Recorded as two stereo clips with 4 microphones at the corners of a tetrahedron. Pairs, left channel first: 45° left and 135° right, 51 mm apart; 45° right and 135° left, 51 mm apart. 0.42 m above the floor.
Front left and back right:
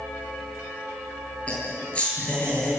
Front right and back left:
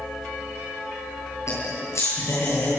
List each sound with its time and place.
1.5 s laughter: 25° right, 9.5 m